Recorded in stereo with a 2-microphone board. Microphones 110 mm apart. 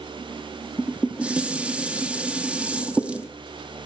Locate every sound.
0.8 s dishes clattering: 10° right (ahead or behind), 1.1 m